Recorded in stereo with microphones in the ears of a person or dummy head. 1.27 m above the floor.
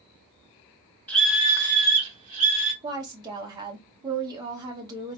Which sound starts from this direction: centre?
A scream, at 1.1 s.